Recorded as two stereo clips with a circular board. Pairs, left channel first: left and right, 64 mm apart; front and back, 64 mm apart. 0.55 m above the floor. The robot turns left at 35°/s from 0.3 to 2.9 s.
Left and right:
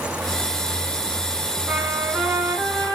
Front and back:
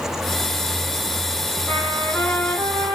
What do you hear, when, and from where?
1.7 s a trumpet: 50° right, 3 m; by 3.0 s 90° right, 3 m